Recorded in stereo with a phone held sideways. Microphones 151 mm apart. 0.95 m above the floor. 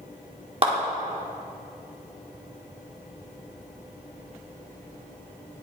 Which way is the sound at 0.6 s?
40° right (ahead or behind).